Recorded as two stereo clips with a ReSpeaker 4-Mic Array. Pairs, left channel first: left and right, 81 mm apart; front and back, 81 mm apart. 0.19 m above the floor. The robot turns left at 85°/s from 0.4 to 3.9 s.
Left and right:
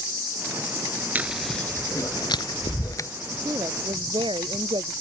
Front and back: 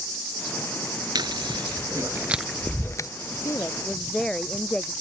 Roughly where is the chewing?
Behind right.